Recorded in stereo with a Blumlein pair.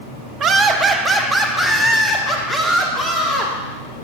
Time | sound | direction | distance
0.4 | laughter | 30° right | 0.9 m